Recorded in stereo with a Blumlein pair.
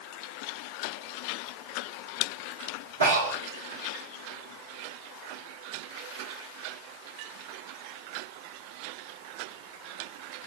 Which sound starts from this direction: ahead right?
Breathing, at 3.0 s.